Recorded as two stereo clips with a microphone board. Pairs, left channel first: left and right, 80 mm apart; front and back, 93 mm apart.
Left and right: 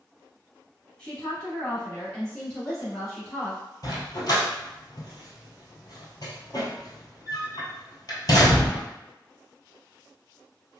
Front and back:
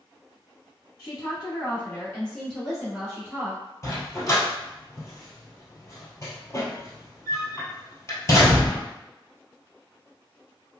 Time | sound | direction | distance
1.0 | a woman speaking | 10° left | 1.7 m
3.8 | a dog barking | 55° left | 1.2 m